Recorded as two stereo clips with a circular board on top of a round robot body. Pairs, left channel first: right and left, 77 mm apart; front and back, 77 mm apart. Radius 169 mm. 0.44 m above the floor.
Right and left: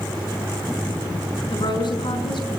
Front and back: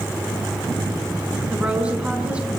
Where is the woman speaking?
105° right, 5 m.